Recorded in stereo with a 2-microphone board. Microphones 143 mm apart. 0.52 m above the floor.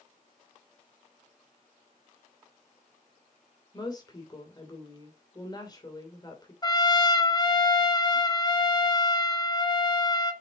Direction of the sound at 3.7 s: 30° left (ahead or behind).